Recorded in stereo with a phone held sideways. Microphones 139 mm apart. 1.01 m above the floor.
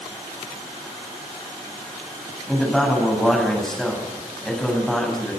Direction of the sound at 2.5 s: 5° left (ahead or behind).